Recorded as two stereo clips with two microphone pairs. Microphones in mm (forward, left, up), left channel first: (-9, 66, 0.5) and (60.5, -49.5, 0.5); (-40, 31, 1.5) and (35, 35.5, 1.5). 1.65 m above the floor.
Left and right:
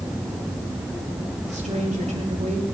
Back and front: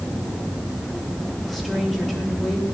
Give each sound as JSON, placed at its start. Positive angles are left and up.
{"t": 1.5, "sound": "a woman speaking", "azimuth_deg": -85, "distance_m": 3.5}